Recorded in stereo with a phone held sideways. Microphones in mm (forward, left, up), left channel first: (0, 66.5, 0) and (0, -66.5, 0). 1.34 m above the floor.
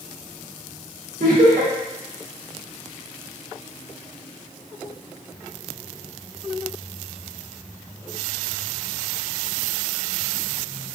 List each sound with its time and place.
1.2 s laughter: 80° right, 0.9 m